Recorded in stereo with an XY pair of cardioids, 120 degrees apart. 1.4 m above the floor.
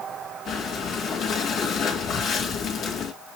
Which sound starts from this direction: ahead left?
Breathing, at 0.5 s.